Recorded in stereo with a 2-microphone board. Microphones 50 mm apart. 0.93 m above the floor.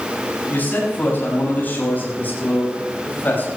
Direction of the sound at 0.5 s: 35° left (ahead or behind).